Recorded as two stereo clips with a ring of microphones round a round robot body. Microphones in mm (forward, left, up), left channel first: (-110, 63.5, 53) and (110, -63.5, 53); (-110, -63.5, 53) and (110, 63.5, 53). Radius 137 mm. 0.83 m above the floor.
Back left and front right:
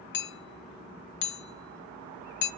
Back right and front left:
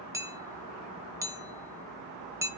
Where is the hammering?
105° left, 0.8 m.